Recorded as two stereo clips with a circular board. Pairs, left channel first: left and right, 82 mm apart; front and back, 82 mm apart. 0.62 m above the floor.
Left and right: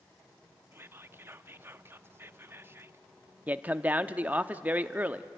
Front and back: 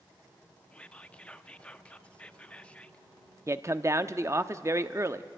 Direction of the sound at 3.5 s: 150° right.